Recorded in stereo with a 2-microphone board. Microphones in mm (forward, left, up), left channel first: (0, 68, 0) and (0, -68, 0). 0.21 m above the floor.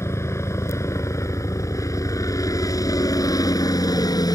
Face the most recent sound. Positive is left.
turn(degrees=30)  # may be behind; listen again after turning